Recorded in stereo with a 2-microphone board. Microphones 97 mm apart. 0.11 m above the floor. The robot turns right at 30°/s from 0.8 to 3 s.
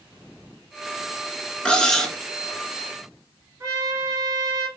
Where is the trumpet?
30° right (ahead or behind), 1.8 m.